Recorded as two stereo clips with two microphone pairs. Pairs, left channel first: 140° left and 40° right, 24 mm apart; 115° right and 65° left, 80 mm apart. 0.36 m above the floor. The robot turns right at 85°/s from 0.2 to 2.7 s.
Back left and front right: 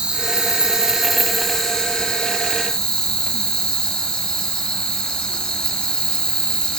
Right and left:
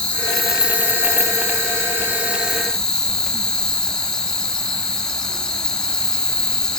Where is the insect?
45° right, 2.5 m; by 6.8 s 170° left, 2.5 m.